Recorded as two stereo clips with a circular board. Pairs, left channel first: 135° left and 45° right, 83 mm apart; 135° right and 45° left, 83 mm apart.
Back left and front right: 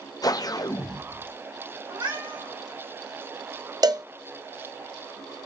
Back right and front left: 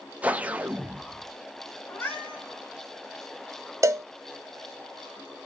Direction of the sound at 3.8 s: 10° right.